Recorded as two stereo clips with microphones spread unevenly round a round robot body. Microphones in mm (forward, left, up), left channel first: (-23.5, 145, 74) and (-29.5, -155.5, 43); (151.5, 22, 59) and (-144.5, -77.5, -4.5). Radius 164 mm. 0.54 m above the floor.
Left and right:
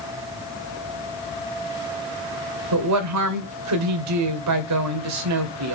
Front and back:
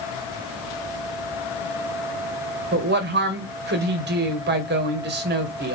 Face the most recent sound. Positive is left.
turn(degrees=-110)